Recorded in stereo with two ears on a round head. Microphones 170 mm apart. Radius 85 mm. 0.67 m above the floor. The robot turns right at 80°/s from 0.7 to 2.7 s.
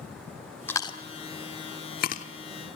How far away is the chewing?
About 1.3 m.